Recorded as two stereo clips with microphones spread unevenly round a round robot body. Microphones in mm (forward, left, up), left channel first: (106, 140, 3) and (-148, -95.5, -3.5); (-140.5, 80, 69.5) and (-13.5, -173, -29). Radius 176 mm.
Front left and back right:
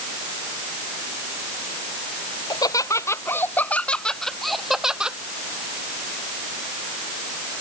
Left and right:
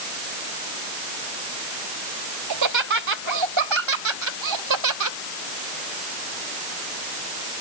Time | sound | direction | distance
2.5 | laughter | 35° right | ?